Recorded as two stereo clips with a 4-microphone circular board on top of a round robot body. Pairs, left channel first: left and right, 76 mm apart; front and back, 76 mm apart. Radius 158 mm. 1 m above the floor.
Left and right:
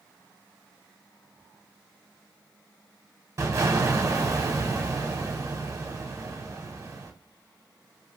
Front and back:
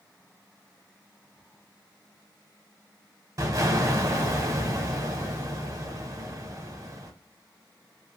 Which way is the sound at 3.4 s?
140° right.